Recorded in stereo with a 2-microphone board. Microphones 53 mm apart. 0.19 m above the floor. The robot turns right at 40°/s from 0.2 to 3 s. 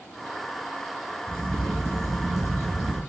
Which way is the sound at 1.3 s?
135° right.